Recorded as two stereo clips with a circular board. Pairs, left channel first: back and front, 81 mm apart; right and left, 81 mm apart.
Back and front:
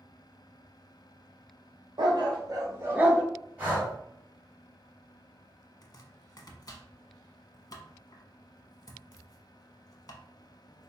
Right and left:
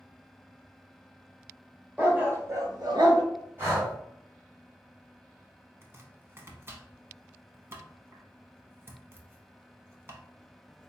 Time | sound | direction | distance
2.0 | a dog barking | 20° left | 1.3 m
3.6 | breathing | 55° left | 1.9 m
5.8 | chopping | 145° left | 0.6 m